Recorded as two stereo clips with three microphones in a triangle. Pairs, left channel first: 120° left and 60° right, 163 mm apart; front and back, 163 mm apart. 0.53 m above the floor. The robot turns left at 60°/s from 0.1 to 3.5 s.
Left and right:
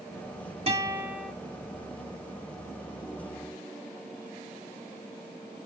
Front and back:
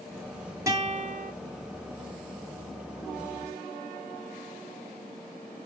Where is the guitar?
105° right, 1.2 m; by 1.3 s 145° right, 1.2 m.